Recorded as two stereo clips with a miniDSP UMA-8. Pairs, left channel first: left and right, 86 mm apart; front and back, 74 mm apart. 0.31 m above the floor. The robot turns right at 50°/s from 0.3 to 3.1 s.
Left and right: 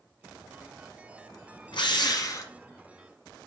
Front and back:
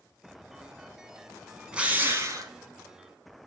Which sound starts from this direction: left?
A drill, at 1.7 s.